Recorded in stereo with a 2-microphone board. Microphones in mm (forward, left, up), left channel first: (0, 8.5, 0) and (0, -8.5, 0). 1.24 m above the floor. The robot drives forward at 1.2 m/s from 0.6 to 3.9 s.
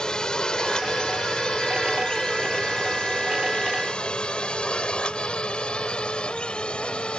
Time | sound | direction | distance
0.0 | a drone | 45° left (ahead or behind) | ?